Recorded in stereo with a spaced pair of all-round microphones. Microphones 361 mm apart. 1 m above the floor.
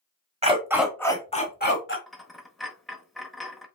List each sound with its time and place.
0.4 s a dog barking: 20° right (ahead or behind), 1.0 m; by 2.0 s 35° left (ahead or behind), 1.3 m
2.1 s a dropped coin: centre (ahead or behind), 0.8 m